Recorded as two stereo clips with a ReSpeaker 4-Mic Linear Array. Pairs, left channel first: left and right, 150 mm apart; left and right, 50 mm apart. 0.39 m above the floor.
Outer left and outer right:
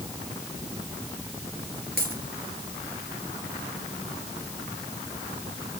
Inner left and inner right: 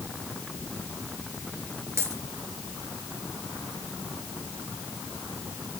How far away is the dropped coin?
About 4 m.